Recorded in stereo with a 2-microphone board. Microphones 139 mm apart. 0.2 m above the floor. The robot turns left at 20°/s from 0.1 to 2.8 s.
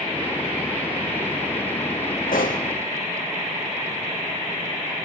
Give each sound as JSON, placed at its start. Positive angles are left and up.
{"t": 2.3, "sound": "a pop", "side_deg": 85, "distance_m": 3.0}